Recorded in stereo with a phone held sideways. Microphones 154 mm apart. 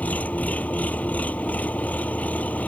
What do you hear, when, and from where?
0.0 s an engine running: 10° left (ahead or behind)